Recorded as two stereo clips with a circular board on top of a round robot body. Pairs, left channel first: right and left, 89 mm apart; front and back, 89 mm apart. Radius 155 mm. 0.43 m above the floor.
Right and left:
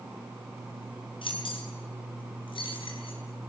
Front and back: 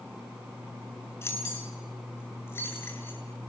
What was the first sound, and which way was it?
Keys jangling, 65° right.